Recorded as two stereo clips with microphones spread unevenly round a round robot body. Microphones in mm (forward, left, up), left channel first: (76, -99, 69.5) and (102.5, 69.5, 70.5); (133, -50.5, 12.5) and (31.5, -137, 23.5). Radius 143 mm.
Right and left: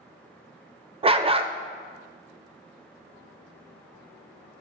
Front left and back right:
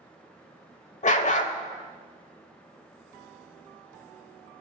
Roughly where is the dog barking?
Ahead.